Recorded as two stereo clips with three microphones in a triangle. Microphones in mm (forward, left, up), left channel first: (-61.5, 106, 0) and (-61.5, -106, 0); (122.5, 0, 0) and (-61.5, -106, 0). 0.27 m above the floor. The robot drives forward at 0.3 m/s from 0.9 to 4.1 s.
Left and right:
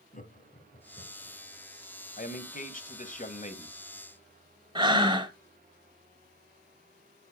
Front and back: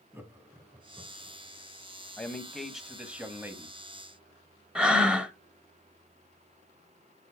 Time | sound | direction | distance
0.1 | laughter | 130° left | 2.5 m
2.2 | a man speaking | 110° left | 1.2 m
4.8 | breathing | 70° right | 0.8 m